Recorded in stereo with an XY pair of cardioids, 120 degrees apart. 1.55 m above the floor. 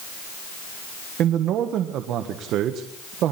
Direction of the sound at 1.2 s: 70° right.